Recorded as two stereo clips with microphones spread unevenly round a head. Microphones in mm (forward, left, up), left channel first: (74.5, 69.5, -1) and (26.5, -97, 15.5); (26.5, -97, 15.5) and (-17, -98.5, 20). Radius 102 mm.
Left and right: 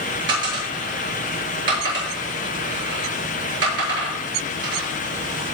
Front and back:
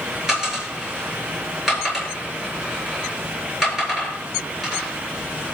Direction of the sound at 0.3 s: 95° right.